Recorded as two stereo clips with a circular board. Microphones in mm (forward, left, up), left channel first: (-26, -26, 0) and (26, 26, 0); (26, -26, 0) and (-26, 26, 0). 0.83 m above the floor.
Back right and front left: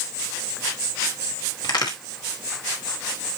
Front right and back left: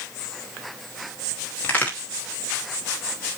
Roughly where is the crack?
Right.